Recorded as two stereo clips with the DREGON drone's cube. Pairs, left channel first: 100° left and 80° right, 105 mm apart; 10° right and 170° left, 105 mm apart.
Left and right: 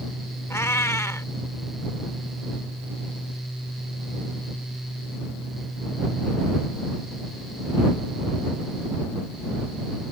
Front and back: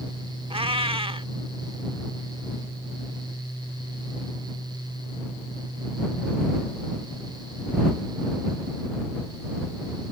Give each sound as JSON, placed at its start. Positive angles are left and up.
{"t": 0.5, "sound": "a cat meowing", "azimuth_deg": 160}